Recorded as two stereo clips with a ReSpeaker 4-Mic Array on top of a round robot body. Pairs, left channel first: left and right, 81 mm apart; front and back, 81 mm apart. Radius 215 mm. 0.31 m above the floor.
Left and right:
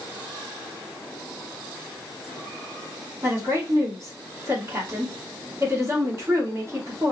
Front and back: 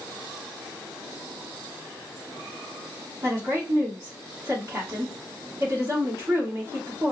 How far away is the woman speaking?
About 2 m.